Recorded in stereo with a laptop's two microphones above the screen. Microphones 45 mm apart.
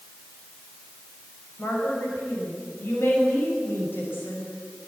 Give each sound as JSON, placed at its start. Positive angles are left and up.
{"t": 1.6, "sound": "a woman speaking", "side_deg": 55, "distance_m": 6.0}